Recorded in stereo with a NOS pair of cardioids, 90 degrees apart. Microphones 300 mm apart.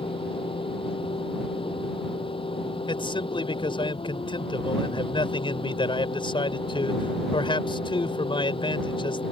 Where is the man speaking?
15° left.